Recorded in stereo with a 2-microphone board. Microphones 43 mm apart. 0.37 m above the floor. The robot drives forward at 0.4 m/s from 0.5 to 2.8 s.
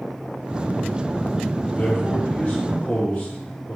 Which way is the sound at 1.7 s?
40° left (ahead or behind).